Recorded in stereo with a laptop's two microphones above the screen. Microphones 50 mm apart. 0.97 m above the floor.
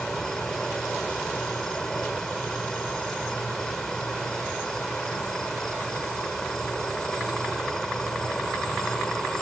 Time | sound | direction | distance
0.0 | an insect | 15° left (ahead or behind) | ?